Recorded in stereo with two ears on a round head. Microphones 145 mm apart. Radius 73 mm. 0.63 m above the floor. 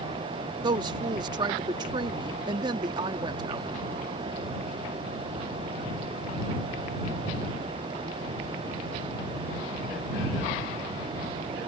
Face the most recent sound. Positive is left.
turn(degrees=-25)  # may be behind; listen again after turning